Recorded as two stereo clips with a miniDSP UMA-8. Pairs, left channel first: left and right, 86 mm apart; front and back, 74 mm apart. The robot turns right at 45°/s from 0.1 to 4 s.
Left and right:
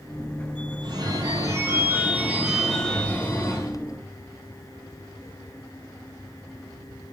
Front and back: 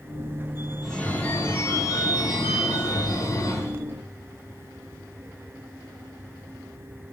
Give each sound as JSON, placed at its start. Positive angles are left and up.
{"t": 0.8, "sound": "a phone ringing", "azimuth_deg": -85, "distance_m": 1.0}